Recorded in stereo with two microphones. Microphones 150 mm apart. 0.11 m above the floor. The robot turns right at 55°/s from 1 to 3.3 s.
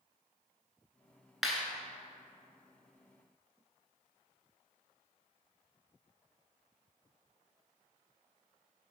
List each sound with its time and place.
1.4 s a clap: centre (ahead or behind), 0.9 m